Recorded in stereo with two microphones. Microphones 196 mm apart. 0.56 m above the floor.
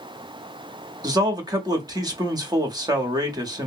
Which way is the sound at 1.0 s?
20° right (ahead or behind).